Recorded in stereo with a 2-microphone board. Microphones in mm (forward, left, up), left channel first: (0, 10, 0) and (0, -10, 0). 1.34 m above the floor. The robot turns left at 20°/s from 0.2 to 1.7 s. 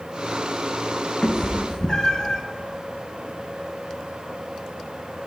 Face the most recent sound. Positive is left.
turn(degrees=30)  # may be behind; listen again after turning